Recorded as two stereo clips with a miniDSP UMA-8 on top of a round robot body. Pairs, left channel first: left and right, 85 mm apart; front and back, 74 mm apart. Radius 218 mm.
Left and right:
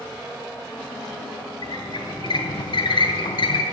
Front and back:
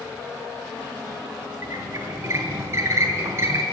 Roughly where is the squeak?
Behind left.